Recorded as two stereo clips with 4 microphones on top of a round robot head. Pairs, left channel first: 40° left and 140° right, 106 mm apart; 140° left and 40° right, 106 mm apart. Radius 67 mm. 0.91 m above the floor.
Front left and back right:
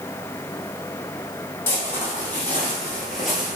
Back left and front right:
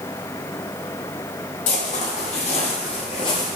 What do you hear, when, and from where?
1.7 s footsteps: 110° left, 1.8 m; by 3.6 s 150° left, 0.9 m